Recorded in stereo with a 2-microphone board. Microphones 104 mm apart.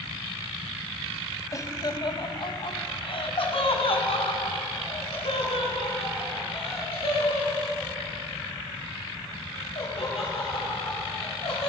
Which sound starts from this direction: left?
Laughter, at 1.5 s.